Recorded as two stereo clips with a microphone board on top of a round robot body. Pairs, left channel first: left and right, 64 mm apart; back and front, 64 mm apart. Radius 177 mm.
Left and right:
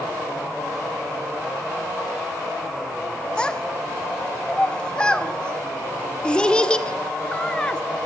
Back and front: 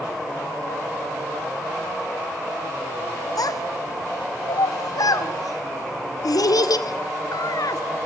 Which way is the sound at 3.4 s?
165° left.